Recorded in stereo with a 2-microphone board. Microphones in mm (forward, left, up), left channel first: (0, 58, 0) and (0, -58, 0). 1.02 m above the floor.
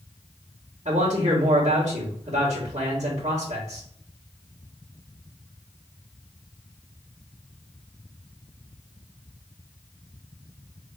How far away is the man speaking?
About 1.7 m.